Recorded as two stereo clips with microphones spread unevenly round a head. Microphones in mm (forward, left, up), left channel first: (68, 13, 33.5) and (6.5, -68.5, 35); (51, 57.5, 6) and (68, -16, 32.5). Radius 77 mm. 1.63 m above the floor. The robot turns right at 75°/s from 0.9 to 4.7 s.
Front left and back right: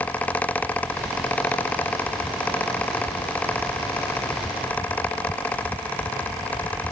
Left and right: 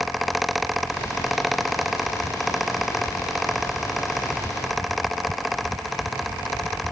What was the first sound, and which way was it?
Only background noise.